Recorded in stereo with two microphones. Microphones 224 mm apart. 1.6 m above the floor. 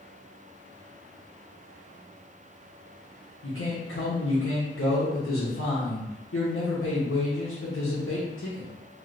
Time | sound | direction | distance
3.4 | a man speaking | 60° left (ahead or behind) | 0.9 m